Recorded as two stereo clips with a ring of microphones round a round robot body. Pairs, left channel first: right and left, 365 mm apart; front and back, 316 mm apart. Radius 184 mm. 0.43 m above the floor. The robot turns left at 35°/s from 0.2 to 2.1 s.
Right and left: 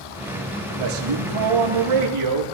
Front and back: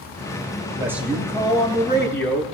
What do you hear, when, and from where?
0.7 s a man speaking: 105° left, 7.5 m; by 2.4 s 55° left, 7.5 m